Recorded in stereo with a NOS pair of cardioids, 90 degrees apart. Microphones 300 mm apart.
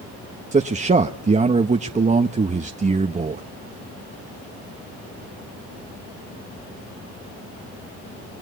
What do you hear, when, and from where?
0.5 s a man speaking: 25° right, 1.2 m